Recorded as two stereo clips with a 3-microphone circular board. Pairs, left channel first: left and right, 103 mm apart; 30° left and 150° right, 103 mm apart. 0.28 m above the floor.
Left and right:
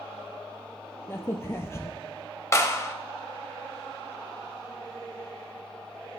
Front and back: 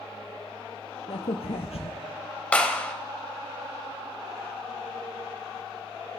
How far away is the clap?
About 0.8 m.